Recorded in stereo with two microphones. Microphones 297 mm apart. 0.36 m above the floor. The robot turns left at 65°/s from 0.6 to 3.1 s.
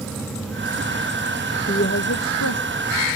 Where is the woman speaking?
150° left; by 3.2 s 60° left.